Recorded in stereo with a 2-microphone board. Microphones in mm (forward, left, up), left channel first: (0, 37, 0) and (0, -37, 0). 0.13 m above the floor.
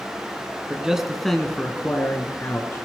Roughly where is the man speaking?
Centre.